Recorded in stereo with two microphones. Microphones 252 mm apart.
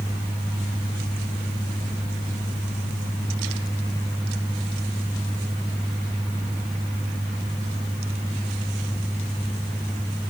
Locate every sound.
Only background noise.